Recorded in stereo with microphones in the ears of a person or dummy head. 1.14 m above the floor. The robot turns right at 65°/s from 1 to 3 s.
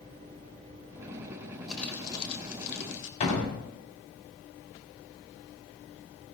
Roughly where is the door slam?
Left.